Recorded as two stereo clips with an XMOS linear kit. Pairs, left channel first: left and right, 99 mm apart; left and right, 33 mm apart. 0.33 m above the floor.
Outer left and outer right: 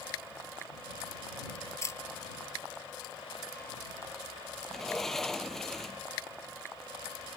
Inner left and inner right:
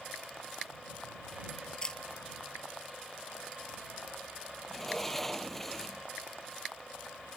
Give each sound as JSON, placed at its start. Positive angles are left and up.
{"t": 1.8, "sound": "a camera shutter", "side_deg": 30}
{"t": 4.7, "sound": "a sliding door", "side_deg": 5}